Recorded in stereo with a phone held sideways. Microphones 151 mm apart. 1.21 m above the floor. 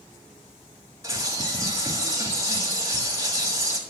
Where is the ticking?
I don't hear ticking.